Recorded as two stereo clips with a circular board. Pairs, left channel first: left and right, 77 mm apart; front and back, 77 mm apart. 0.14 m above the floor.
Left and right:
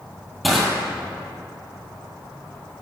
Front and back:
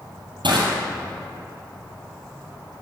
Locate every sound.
0.4 s crushing: straight behind, 2.0 m